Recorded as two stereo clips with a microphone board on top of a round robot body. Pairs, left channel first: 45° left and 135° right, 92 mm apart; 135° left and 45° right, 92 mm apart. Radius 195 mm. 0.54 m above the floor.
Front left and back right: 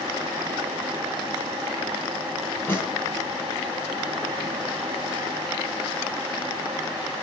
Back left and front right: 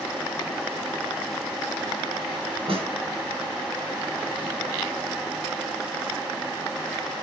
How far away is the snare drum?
About 8.5 m.